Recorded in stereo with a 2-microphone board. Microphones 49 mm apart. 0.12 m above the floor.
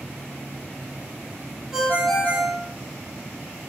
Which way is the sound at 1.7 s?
Centre (ahead or behind).